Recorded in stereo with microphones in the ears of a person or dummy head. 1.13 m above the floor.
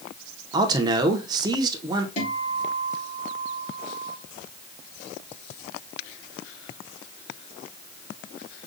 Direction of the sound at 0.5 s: 15° right (ahead or behind).